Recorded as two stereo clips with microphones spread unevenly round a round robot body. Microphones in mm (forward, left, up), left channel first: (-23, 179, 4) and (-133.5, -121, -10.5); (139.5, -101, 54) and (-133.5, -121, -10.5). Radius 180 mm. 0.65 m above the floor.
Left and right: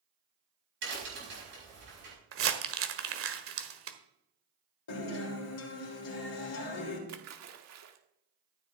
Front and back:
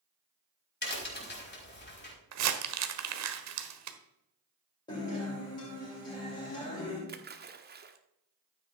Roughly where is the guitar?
Left.